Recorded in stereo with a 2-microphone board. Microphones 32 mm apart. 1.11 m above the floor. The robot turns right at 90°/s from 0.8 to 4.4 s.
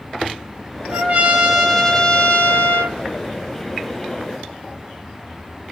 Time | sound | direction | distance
0.9 | a trumpet | 75° right | 0.7 m